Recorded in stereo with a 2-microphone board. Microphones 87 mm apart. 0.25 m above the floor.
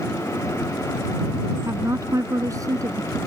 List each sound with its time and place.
1.6 s a woman speaking: 35° right (ahead or behind); by 3.2 s 40° right (ahead or behind)